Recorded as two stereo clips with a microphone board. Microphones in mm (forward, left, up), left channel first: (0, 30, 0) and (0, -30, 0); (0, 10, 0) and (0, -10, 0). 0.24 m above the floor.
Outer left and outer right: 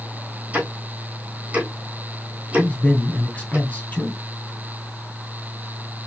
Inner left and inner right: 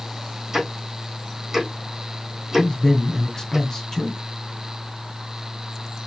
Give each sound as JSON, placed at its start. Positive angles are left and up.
{"t": 0.5, "sound": "ticking", "side_deg": -20, "distance_m": 2.5}
{"t": 2.6, "sound": "a man speaking", "side_deg": 25, "distance_m": 2.0}